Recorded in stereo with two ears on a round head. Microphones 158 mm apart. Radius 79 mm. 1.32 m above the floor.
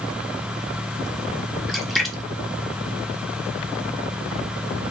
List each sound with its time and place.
1.7 s a splash: centre (ahead or behind), 0.6 m